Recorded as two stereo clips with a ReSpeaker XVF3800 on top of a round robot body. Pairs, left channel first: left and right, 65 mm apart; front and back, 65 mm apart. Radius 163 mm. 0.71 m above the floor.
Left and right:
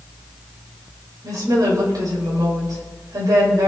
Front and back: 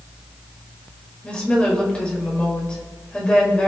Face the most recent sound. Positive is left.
turn(degrees=-75)